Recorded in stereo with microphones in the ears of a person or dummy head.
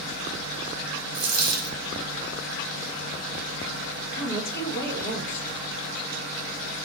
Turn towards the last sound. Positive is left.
turn(degrees=60)  # may be behind; listen again after turning